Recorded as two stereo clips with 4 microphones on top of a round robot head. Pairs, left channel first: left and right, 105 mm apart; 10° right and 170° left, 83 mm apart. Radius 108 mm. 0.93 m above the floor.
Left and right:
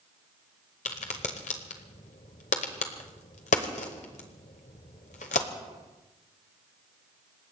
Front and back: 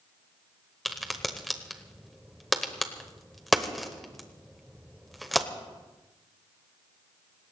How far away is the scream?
I don't hear a scream.